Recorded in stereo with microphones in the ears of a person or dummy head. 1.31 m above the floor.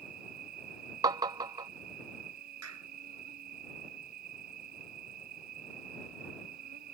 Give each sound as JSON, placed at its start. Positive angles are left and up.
{"t": 0.0, "sound": "an insect", "side_deg": -50}
{"t": 1.0, "sound": "tapping", "side_deg": -20}
{"t": 2.6, "sound": "a clap", "side_deg": -90}